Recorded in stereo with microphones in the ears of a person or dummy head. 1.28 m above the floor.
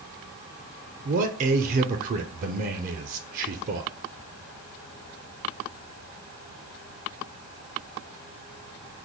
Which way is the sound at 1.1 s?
40° right (ahead or behind).